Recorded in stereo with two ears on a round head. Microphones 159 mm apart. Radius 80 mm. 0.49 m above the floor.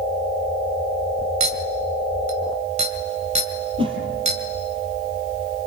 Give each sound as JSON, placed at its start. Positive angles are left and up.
{"t": 1.4, "sound": "a clink", "side_deg": -35, "distance_m": 2.0}
{"t": 3.8, "sound": "a whoosh", "side_deg": -30, "distance_m": 4.0}